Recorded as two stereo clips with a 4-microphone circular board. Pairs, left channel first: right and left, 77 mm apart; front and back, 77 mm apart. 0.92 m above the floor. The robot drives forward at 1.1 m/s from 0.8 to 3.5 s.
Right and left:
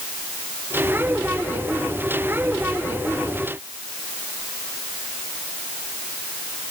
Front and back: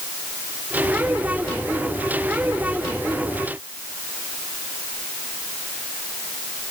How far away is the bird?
I don't hear a bird.